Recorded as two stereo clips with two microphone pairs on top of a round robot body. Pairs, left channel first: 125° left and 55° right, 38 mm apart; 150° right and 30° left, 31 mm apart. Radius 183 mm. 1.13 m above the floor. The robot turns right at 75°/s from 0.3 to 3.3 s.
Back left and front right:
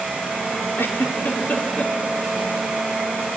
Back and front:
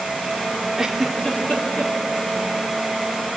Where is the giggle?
100° left, 2.5 m; by 1.9 s 170° right, 2.5 m.